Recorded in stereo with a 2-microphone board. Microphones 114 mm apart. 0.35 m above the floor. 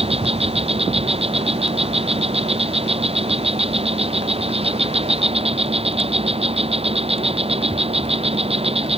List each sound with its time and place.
0.0 s an insect: 55° right (ahead or behind)